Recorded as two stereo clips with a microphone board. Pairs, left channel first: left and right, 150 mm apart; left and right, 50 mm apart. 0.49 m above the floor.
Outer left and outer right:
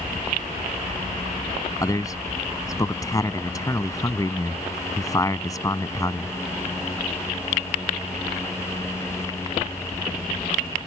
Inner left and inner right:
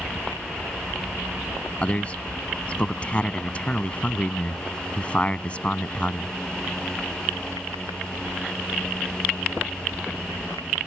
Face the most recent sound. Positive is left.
turn(degrees=25)  # may be behind; listen again after turning